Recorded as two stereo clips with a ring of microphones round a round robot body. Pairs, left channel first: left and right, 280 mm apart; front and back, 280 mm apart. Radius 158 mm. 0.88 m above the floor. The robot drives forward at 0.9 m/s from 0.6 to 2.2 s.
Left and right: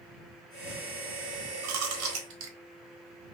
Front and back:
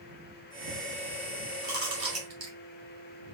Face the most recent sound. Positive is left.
turn(degrees=-135)